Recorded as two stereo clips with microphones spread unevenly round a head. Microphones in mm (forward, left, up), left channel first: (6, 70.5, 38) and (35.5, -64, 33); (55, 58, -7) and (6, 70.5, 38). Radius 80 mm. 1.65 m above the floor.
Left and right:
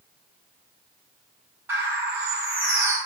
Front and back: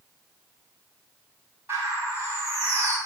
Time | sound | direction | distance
1.7 | a bird | 155° right | 4.5 m